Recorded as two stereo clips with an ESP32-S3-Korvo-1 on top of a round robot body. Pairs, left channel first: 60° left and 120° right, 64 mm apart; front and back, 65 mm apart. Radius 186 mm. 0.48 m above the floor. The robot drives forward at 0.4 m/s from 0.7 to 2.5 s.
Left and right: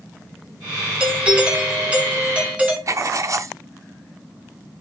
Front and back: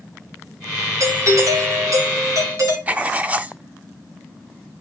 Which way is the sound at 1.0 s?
170° left.